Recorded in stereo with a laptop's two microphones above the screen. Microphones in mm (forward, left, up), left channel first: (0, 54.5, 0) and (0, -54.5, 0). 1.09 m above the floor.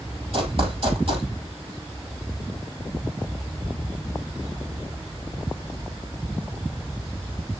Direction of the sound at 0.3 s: 60° right (ahead or behind).